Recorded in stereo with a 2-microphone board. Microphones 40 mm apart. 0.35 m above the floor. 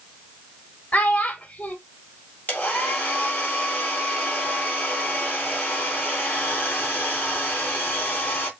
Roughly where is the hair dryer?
Left.